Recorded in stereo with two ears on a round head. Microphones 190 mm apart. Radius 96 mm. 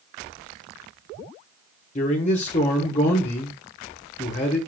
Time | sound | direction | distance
1.9 | a man speaking | 35° left (ahead or behind) | 1.3 m